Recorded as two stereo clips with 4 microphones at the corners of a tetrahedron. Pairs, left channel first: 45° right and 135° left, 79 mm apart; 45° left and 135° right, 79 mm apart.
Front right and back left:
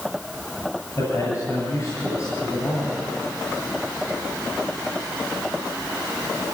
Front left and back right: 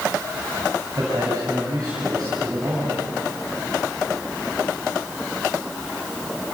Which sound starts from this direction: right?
A man speaking, at 0.9 s.